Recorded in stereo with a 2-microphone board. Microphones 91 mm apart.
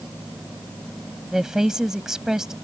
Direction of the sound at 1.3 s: 5° right (ahead or behind).